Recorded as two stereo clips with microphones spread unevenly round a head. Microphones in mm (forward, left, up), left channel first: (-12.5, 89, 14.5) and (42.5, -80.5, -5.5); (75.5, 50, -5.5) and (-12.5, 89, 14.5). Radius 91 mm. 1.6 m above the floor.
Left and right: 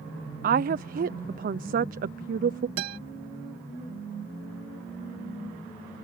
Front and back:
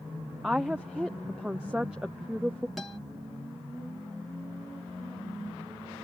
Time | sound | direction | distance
0.4 | a woman speaking | 115° right | ?
2.8 | a guitar | 115° right | ?